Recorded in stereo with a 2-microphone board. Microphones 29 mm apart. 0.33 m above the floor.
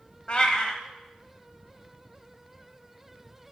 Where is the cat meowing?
35° left (ahead or behind), 1.0 m.